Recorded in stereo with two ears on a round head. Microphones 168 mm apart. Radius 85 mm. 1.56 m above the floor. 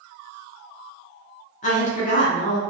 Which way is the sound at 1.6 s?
35° left (ahead or behind).